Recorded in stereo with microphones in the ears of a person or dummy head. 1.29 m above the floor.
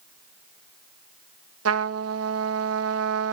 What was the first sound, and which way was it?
A trumpet, 70° right (ahead or behind).